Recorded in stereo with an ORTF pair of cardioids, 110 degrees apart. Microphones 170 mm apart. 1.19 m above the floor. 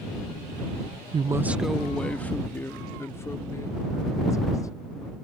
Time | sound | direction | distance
1.1 | a woman speaking | 30° right | ?